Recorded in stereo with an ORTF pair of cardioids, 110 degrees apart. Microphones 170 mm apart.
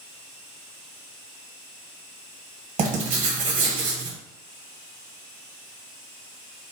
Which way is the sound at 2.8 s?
50° right.